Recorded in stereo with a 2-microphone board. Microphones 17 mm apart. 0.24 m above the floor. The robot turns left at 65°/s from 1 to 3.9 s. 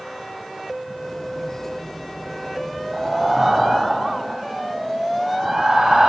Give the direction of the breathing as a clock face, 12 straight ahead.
12 o'clock.